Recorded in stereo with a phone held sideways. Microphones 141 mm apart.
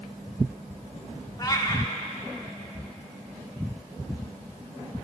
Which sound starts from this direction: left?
A cat meowing, at 1.4 s.